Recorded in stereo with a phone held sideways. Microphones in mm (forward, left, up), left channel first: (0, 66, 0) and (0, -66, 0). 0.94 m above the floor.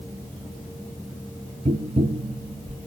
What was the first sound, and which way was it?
Tapping, 50° right (ahead or behind).